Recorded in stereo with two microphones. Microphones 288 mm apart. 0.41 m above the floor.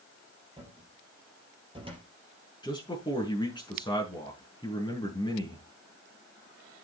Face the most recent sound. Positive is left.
turn(degrees=15)  # may be behind; listen again after turning